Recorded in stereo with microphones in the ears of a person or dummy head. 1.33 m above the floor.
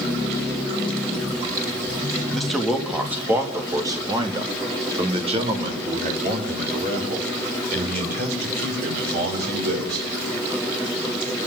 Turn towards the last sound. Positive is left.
turn(degrees=-50)  # may be behind; listen again after turning